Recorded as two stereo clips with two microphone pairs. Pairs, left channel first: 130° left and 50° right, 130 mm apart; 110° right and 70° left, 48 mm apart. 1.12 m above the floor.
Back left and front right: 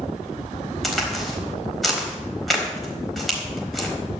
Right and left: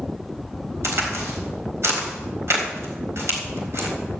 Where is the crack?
40° left, 3.5 m.